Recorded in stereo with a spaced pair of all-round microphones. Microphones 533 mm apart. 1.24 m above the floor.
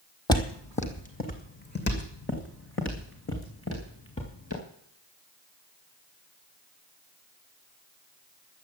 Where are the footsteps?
10° left (ahead or behind), 2 m; by 4.6 s 25° left (ahead or behind), 6 m.